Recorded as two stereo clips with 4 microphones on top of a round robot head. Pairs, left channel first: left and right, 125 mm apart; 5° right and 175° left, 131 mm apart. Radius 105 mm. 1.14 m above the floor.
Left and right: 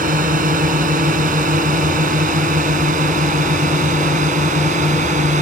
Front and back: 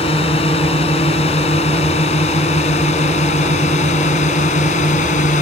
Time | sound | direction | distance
0.0 | a drone | 60° right | ?